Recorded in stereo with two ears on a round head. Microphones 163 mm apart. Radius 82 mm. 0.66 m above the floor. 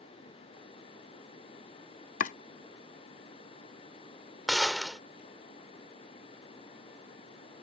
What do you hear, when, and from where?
2.2 s chopping: 45° left (ahead or behind)
4.5 s a gunshot: centre (ahead or behind)